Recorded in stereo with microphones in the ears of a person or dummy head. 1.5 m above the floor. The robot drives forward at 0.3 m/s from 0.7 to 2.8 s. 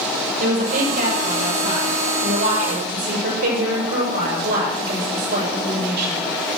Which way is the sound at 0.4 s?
45° right (ahead or behind).